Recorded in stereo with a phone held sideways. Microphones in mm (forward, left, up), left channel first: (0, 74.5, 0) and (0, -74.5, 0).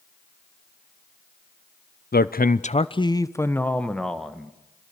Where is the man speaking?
85° left, 0.6 m; by 4.5 s centre (ahead or behind), 1.8 m.